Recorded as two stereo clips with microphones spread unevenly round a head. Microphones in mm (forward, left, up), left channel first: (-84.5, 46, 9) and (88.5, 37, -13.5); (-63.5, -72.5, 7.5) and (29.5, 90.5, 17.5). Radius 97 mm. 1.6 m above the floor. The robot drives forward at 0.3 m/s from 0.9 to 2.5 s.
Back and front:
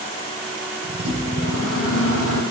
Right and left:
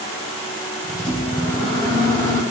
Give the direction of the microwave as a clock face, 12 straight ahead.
6 o'clock.